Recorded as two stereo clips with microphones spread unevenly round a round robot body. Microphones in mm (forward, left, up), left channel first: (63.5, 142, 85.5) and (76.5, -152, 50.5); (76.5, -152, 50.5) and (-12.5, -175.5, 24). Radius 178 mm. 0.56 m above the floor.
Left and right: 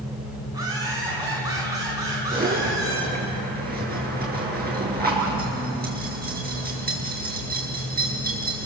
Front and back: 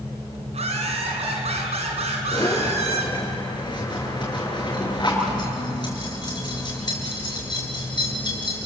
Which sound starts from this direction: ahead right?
A zipper, at 2.3 s.